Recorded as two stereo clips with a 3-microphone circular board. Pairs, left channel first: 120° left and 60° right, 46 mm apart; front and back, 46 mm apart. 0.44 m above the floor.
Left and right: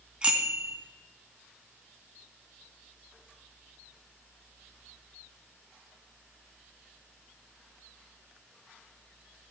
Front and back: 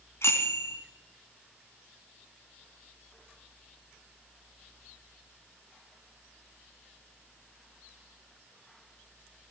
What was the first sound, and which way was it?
A bicycle bell, 5° left.